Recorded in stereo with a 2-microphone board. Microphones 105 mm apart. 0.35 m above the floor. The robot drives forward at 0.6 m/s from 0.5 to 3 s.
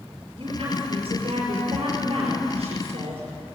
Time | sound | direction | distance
0.4 | a woman speaking | 55° right (ahead or behind) | 6 m